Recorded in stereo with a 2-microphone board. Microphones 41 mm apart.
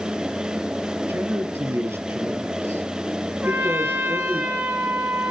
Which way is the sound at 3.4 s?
45° right (ahead or behind).